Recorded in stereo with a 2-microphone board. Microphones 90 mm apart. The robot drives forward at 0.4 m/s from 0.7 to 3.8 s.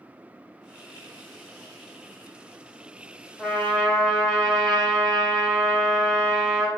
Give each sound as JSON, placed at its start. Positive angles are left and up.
{"t": 3.4, "sound": "a trumpet", "side_deg": 5, "distance_m": 1.5}